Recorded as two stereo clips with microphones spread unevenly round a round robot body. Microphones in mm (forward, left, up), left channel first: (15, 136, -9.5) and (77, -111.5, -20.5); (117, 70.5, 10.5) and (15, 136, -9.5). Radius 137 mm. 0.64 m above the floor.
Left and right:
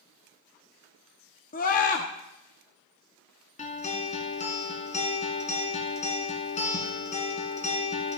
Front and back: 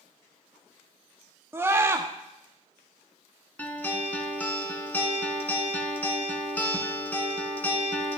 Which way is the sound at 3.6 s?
40° left.